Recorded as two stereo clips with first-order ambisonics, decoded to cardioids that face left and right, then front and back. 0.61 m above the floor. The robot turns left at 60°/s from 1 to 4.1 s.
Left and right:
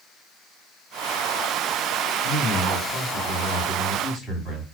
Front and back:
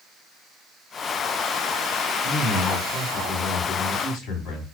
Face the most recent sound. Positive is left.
turn(degrees=-5)